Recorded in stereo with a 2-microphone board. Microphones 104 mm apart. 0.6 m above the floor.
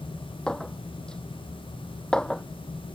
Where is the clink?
5° left (ahead or behind).